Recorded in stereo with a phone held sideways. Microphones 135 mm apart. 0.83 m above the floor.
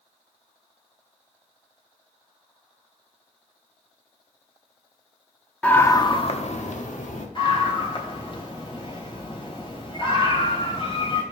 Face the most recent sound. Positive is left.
turn(degrees=40)  # may be behind; listen again after turning